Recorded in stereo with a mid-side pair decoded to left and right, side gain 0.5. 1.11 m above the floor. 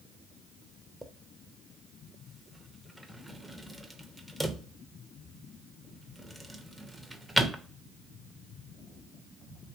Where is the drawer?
10° right, 0.5 m.